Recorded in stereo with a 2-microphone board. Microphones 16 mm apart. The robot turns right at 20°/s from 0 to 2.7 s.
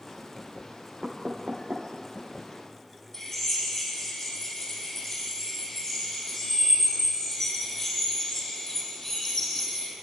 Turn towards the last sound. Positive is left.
turn(degrees=25)  # may be behind; listen again after turning